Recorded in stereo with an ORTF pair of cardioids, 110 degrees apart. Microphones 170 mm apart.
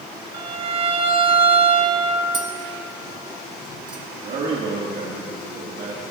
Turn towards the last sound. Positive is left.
turn(degrees=-65)